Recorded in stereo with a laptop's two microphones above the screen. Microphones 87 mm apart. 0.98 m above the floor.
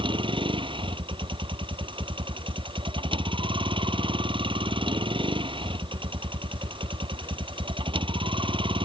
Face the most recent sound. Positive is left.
turn(degrees=-75)  # may be behind; listen again after turning